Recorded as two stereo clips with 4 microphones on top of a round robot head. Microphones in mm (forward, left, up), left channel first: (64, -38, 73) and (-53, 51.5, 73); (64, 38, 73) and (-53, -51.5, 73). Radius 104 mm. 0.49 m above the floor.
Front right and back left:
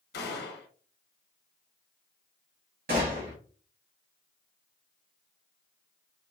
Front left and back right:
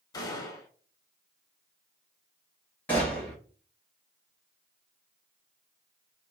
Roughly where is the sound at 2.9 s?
Behind left.